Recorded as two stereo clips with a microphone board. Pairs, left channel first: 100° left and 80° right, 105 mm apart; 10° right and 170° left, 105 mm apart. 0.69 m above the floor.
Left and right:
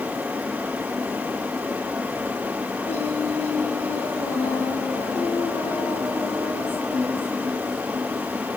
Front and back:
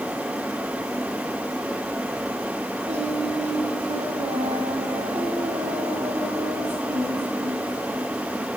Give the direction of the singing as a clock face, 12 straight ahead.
6 o'clock.